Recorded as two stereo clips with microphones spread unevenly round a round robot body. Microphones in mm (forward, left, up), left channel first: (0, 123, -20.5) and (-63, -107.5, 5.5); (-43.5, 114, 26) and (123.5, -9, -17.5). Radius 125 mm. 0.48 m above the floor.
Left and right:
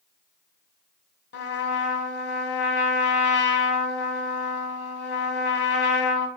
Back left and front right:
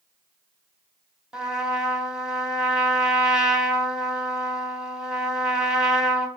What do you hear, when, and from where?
1.3 s a trumpet: 40° left, 1.7 m